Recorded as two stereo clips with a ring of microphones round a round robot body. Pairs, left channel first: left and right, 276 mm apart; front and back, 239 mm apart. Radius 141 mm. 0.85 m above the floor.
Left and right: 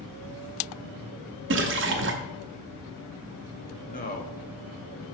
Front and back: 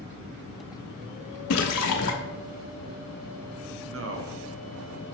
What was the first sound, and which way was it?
A splash, 40° right.